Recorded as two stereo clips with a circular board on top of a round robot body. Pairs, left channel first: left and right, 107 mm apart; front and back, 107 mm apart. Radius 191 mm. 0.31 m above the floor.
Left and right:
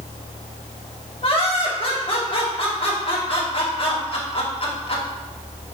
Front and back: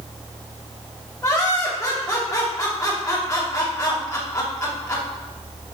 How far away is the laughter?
About 3 m.